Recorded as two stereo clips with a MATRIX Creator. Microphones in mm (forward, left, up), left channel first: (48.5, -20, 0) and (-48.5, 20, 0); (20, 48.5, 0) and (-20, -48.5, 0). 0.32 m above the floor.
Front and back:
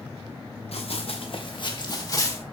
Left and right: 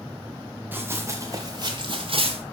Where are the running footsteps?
40° right, 2.5 m; by 2.4 s 85° right, 2.5 m.